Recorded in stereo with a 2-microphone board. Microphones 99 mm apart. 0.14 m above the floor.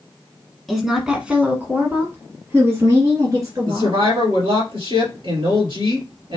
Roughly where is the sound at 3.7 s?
Right.